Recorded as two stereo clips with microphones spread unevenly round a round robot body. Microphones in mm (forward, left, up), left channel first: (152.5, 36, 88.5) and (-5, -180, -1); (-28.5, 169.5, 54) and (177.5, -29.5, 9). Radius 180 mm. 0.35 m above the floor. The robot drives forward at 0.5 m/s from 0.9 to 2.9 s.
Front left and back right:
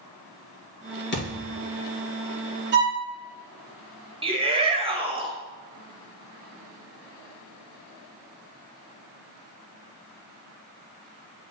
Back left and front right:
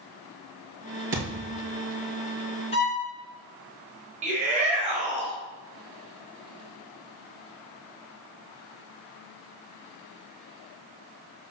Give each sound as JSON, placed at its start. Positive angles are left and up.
{"t": 1.1, "sound": "a thud", "azimuth_deg": 5, "distance_m": 2.5}
{"t": 2.7, "sound": "a violin", "azimuth_deg": -150, "distance_m": 1.7}
{"t": 4.2, "sound": "a shout", "azimuth_deg": -90, "distance_m": 1.6}